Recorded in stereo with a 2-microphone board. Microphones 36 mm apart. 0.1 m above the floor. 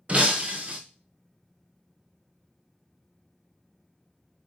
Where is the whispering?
I don't hear whispering.